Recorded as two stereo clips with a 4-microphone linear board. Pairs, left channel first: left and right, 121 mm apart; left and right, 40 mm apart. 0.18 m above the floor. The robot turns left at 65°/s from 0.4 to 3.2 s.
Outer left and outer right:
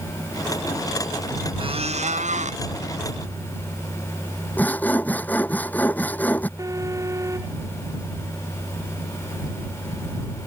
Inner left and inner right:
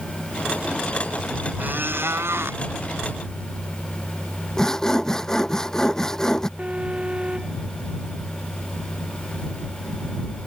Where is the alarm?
25° right (ahead or behind).